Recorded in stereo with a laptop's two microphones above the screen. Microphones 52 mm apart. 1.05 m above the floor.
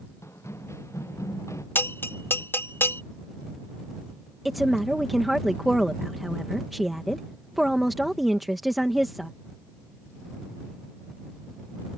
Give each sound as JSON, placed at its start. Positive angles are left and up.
{"t": 0.2, "sound": "running footsteps", "side_deg": 60}
{"t": 1.8, "sound": "a bell", "side_deg": 45}
{"t": 4.5, "sound": "a woman speaking", "side_deg": 0}